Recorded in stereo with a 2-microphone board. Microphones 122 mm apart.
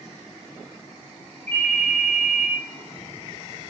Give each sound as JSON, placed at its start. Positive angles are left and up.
{"t": 1.5, "sound": "a ringtone", "side_deg": 15, "distance_m": 4.5}